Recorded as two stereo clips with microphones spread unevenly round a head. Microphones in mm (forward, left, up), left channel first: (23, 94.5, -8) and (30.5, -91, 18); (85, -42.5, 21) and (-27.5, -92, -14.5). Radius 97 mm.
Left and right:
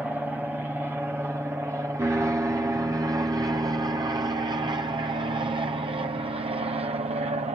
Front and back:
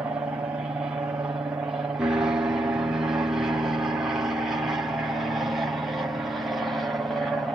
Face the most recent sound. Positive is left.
turn(degrees=-110)